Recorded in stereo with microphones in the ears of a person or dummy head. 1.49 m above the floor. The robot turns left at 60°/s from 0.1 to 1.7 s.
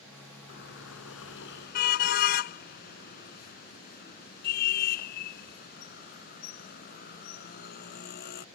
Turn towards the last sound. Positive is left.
turn(degrees=55)  # may be behind; listen again after turning